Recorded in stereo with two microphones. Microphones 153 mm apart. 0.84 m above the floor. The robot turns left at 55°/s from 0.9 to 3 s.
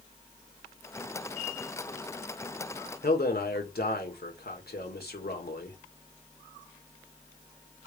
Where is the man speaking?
80° left, 2 m.